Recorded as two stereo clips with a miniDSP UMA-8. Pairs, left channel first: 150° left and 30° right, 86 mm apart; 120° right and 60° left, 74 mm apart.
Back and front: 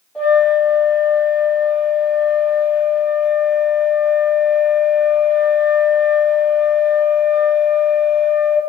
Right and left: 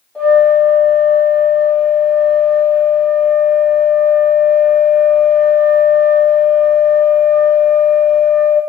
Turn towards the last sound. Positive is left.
turn(degrees=-165)